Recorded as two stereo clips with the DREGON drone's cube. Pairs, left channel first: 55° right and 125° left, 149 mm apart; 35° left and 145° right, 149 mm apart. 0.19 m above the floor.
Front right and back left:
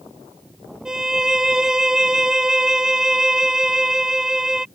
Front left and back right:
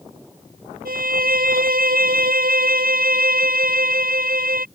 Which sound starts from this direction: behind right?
A violin, at 0.8 s.